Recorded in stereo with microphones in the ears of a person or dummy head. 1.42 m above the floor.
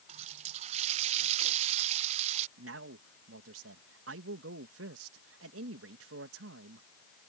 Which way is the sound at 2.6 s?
80° right.